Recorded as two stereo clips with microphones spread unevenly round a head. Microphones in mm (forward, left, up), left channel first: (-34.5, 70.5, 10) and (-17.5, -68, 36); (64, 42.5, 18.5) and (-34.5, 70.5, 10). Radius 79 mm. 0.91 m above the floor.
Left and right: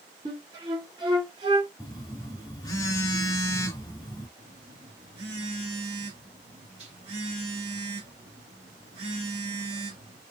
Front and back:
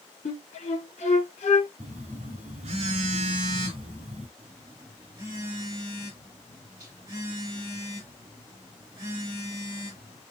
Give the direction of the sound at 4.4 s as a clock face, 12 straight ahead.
4 o'clock.